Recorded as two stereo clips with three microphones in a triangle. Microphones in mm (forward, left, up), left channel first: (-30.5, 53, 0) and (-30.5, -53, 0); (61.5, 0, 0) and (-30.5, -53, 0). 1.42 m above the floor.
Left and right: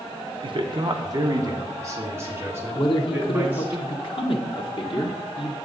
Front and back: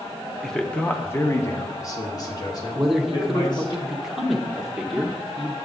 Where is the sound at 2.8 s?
125° left, 0.9 m.